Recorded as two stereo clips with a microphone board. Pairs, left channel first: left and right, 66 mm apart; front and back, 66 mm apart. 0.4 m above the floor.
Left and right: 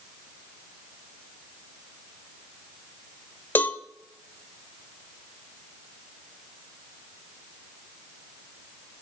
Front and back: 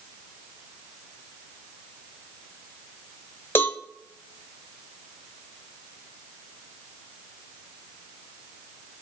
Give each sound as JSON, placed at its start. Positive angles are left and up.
{"t": 3.5, "sound": "a cowbell", "azimuth_deg": 45, "distance_m": 1.1}